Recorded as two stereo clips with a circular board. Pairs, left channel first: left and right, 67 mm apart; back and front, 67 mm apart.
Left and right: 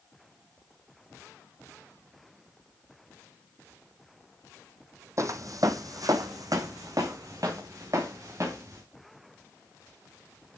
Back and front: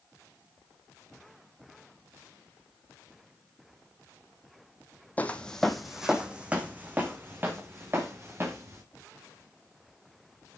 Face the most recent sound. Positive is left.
turn(degrees=-50)